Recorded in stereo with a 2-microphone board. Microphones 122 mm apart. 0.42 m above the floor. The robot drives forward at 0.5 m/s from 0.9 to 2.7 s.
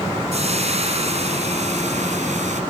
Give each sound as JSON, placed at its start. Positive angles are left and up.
{"t": 0.3, "sound": "frying", "side_deg": -60, "distance_m": 2.0}